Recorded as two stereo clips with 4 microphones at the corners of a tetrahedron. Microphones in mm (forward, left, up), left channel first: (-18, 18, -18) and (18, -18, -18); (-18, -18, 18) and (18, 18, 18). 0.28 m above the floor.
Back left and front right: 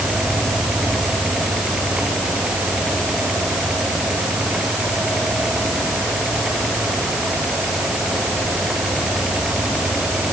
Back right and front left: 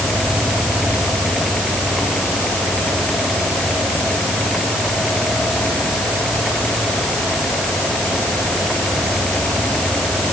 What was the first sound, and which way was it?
Only background noise.